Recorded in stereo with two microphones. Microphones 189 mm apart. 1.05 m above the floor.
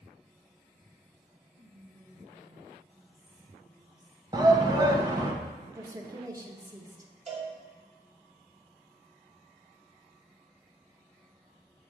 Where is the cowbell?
40° right (ahead or behind), 2 m.